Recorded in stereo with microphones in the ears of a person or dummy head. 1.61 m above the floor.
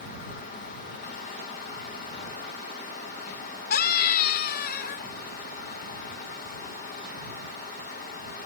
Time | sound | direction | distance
3.7 | a scream | 60° left (ahead or behind) | ?